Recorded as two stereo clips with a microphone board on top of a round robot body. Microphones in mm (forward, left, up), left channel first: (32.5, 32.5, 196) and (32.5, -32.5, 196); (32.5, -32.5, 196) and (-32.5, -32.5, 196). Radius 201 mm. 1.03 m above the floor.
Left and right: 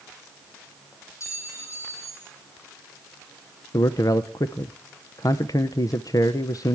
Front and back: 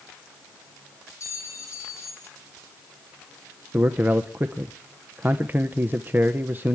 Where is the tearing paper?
I don't hear tearing paper.